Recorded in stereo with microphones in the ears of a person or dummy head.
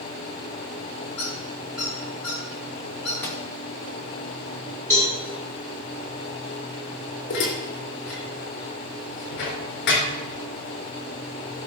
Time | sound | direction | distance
1.2 | a squeak | centre (ahead or behind) | 5.5 m
3.2 | a microwave | 10° left (ahead or behind) | 1.6 m
4.9 | a cowbell | 10° left (ahead or behind) | 4.5 m
7.3 | dishes clattering | 55° left (ahead or behind) | 3.5 m